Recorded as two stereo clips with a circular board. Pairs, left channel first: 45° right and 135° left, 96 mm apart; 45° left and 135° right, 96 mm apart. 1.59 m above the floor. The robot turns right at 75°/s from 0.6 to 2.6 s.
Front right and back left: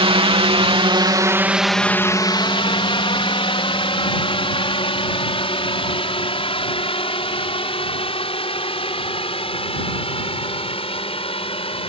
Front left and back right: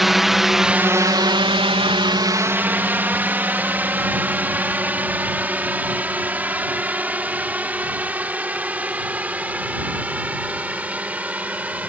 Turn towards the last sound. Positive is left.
turn(degrees=-60)